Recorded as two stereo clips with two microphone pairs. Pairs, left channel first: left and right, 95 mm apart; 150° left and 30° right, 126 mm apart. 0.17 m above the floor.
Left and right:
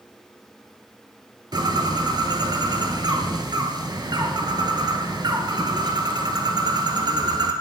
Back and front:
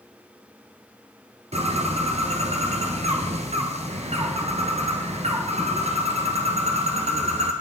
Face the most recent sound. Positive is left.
turn(degrees=-55)